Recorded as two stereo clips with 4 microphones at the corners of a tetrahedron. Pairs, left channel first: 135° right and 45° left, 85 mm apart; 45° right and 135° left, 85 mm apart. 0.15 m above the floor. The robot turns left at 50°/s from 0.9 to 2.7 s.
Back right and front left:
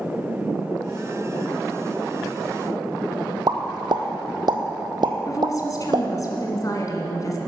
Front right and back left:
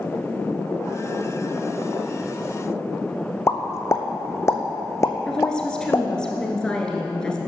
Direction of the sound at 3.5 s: 10° left.